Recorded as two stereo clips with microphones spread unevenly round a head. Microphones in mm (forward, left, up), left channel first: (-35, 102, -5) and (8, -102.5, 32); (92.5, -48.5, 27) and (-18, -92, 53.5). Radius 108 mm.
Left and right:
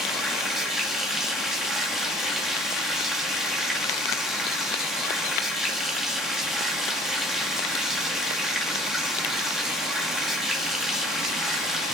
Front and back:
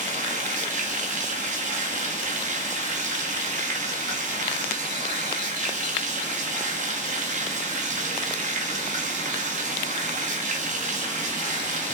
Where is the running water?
165° right, 1.3 m.